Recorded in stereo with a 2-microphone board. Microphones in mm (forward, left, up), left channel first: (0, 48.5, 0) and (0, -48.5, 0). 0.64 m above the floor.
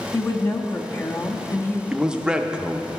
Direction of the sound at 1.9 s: 10° right (ahead or behind).